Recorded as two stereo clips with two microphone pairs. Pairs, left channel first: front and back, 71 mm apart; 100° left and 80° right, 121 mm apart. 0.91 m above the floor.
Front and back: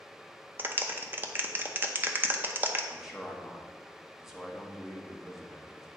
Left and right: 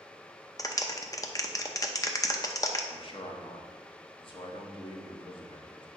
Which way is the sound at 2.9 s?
100° left.